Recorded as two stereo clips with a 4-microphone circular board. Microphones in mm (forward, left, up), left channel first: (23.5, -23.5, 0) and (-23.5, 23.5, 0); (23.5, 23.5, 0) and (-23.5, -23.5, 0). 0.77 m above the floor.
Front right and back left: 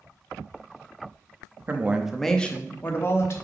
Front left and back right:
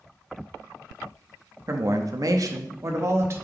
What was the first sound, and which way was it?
A woman speaking, 170° right.